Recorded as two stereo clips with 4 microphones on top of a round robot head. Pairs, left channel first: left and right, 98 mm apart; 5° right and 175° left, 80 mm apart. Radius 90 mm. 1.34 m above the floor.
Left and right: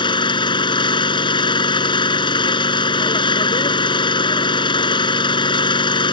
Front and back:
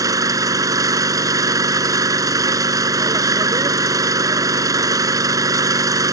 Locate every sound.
0.0 s an engine running: 130° left